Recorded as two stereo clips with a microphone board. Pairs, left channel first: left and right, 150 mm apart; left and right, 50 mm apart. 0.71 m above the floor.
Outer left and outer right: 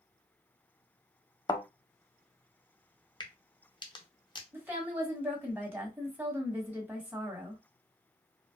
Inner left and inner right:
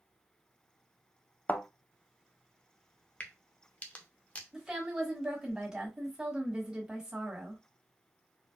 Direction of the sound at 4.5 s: 15° right (ahead or behind).